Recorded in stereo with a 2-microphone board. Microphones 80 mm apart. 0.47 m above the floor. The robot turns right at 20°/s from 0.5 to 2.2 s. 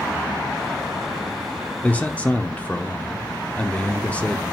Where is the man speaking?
20° left (ahead or behind), 0.8 m; by 4.4 s 15° left (ahead or behind), 0.8 m.